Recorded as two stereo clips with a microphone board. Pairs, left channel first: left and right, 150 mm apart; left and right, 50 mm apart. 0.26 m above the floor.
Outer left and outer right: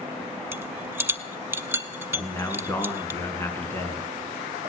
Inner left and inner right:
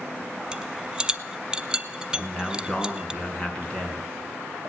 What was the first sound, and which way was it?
A rattle, 15° right (ahead or behind).